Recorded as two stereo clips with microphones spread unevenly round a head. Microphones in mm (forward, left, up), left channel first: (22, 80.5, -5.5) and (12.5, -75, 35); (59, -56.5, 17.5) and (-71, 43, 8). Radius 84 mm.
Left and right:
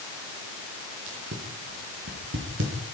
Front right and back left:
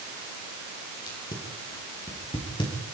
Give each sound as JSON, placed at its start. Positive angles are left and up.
{"t": 1.1, "sound": "tape being pulled", "azimuth_deg": -100, "distance_m": 7.0}